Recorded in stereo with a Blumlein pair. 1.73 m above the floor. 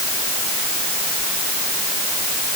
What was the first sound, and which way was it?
Only background noise.